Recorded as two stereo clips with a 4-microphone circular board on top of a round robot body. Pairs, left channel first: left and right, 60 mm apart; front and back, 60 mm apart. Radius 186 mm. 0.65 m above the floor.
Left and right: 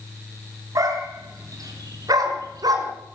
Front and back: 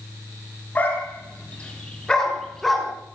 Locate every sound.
0.8 s a dog barking: 65° right, 5.5 m; by 2.9 s 90° right, 4.5 m